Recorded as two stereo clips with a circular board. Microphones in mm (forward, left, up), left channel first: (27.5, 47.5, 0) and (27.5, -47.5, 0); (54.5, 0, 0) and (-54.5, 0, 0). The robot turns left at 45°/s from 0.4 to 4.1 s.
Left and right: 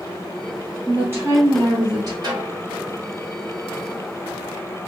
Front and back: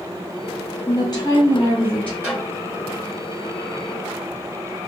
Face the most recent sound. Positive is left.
turn(degrees=160)